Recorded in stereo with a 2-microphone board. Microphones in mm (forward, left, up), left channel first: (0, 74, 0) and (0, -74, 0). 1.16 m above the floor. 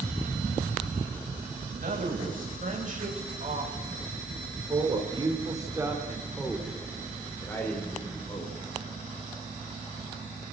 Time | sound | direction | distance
1.7 | a man speaking | 65° right (ahead or behind) | 8.5 m